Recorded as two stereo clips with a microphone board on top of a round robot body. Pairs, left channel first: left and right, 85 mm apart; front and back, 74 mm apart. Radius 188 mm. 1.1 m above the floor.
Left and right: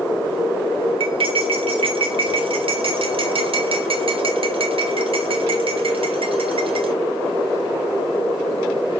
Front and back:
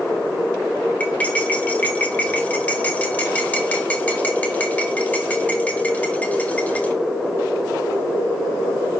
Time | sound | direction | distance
1.0 | cutlery clinking | 70° right | 1.6 m